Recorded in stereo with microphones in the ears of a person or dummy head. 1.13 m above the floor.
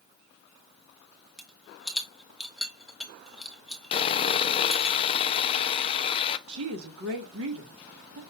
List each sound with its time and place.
1.4 s a rattle: centre (ahead or behind), 0.7 m
3.9 s sawing: 20° left (ahead or behind), 0.5 m
6.5 s a woman speaking: 70° right (ahead or behind), 1.5 m